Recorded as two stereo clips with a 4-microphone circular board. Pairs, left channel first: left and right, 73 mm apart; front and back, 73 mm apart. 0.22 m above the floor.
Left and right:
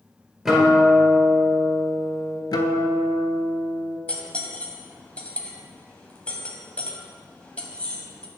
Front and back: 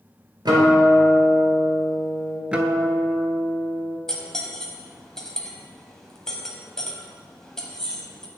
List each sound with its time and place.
0.5 s a guitar: 175° right, 1.8 m
2.5 s a guitar: 105° left, 0.5 m
4.1 s cutlery clinking: 65° left, 0.8 m